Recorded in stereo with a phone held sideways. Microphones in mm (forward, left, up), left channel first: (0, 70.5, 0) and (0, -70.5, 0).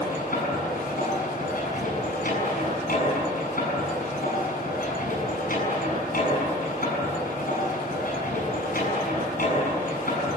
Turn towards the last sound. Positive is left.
turn(degrees=85)